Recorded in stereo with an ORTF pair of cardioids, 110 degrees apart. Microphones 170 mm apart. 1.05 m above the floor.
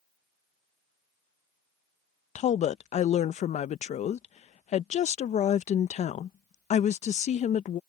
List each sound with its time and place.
2.4 s a woman speaking: 45° left